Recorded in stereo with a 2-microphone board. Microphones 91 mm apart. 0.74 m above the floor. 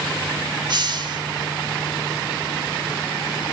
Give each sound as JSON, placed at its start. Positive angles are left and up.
{"t": 0.7, "sound": "a hiss", "side_deg": -55, "distance_m": 1.3}